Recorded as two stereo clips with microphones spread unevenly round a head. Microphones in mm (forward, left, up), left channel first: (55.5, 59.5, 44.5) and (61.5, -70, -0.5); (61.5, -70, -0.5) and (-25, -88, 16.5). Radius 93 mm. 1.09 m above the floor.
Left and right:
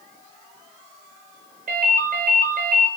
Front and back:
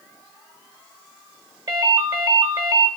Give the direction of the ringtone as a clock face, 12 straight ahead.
4 o'clock.